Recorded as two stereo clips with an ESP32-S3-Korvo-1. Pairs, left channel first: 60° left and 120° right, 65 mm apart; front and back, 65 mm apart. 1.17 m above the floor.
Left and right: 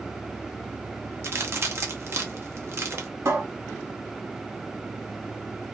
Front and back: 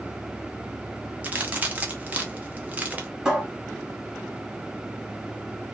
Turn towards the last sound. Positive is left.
turn(degrees=-105)